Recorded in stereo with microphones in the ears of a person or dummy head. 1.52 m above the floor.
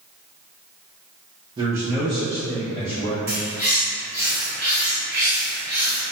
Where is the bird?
15° right (ahead or behind), 1.5 m.